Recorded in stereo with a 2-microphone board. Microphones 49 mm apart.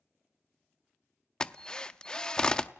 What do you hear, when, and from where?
1.4 s a drill: 15° left (ahead or behind), 0.6 m